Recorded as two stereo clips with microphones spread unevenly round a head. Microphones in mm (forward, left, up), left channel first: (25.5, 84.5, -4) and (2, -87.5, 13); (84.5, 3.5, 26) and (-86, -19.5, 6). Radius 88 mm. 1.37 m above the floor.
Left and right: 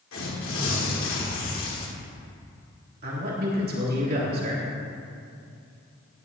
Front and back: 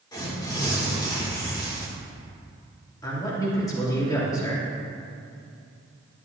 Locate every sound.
0.1 s tearing paper: 75° left, 2 m
3.0 s a man speaking: 65° right, 2.5 m